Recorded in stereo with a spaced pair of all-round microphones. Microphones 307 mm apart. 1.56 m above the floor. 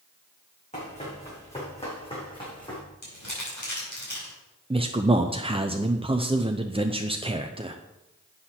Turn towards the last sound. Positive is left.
turn(degrees=-20)  # may be behind; listen again after turning